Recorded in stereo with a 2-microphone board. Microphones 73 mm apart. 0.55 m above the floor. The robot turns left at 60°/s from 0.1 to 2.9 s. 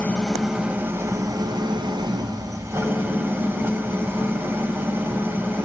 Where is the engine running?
20° left, 1.5 m; by 5.6 s 150° right, 1.5 m.